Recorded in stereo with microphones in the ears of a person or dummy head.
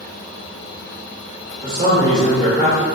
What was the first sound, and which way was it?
A man speaking, 30° right (ahead or behind).